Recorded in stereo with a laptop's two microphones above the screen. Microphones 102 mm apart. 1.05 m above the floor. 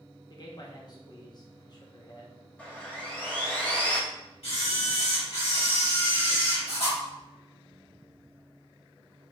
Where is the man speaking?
40° left (ahead or behind), 0.8 m.